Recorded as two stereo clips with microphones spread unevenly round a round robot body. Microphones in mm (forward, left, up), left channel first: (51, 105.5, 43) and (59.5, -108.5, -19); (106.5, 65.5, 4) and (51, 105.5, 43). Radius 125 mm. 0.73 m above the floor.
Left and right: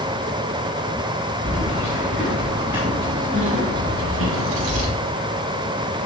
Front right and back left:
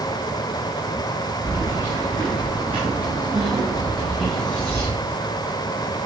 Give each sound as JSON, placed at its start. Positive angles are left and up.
{"t": 1.4, "sound": "keys jangling", "azimuth_deg": 175, "distance_m": 5.0}